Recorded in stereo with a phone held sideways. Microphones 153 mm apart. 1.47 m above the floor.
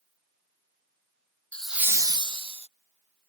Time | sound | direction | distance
1.5 | laughter | 10° left (ahead or behind) | ?